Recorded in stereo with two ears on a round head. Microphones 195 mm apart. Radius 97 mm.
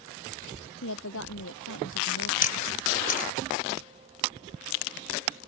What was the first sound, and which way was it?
A woman speaking, 65° left (ahead or behind).